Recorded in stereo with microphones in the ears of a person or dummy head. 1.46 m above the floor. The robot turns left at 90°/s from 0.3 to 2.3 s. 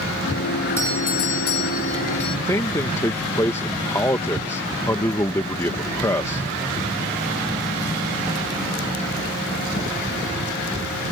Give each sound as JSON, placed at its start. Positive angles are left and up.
{"t": 0.8, "sound": "a doorbell", "azimuth_deg": 170}
{"t": 2.5, "sound": "a man speaking", "side_deg": 15}